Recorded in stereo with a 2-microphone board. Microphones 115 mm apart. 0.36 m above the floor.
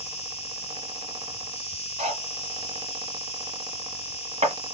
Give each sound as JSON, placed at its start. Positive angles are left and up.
{"t": 0.0, "sound": "an insect", "side_deg": 60, "distance_m": 1.1}
{"t": 2.0, "sound": "cutlery clinking", "side_deg": -75, "distance_m": 2.5}